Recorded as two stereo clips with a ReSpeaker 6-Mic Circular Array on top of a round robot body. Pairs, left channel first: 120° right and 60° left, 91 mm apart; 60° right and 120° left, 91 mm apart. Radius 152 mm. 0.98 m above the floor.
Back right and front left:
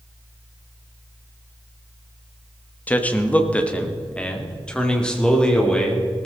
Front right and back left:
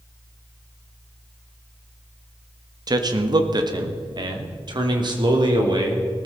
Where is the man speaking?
165° left, 1.3 m; by 6.3 s 155° left, 3 m.